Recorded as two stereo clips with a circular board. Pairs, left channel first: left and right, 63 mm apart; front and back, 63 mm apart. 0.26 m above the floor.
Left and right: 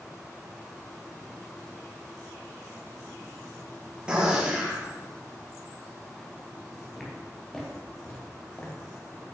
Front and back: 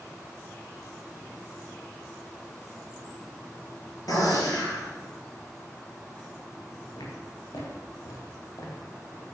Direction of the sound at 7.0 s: Straight ahead.